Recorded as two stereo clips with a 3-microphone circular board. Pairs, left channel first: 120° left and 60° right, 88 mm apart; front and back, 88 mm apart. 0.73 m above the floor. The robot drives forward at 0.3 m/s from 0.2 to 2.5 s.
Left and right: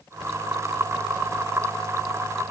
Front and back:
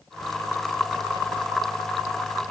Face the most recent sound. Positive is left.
No sound to turn to.